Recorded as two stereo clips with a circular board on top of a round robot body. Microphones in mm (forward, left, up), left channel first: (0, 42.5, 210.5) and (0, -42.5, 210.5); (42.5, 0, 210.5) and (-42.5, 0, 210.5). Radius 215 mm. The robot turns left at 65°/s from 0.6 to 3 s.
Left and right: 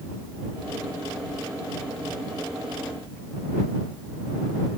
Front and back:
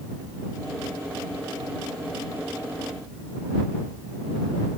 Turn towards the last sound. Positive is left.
No sound to turn to.